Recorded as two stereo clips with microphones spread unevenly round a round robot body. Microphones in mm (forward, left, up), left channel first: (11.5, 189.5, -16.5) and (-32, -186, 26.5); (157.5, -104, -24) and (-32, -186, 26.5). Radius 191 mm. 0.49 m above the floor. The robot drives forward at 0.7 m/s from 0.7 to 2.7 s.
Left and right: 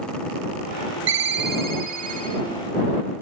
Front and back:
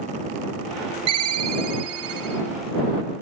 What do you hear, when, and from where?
1.1 s a ringtone: 160° right, 1.1 m; by 2.4 s 170° right, 2 m